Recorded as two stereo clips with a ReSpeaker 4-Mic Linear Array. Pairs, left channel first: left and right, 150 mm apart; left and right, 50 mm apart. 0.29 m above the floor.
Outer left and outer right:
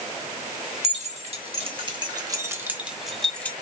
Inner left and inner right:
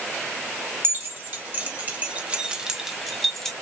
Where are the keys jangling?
50° right (ahead or behind), 1.4 m; by 3.5 s 10° left (ahead or behind), 1.0 m.